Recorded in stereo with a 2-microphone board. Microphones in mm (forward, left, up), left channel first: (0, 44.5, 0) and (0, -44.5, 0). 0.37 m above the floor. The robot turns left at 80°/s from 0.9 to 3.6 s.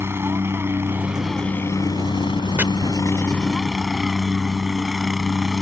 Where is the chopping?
20° right (ahead or behind); by 2.6 s 25° right (ahead or behind).